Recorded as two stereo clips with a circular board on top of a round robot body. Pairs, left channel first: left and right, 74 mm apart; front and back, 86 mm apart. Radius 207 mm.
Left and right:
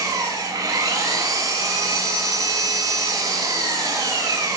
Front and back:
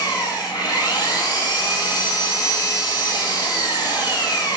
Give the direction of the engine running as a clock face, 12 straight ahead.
1 o'clock.